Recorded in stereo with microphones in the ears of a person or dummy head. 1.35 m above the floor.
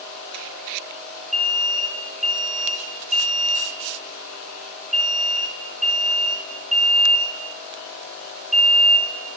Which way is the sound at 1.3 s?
Centre (ahead or behind).